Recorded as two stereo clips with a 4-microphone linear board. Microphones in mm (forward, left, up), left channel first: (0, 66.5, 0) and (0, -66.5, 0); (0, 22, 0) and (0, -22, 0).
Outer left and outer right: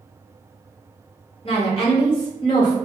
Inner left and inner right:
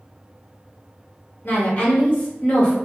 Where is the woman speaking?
50° left (ahead or behind), 1.4 m; by 2.8 s 35° left (ahead or behind), 1.3 m.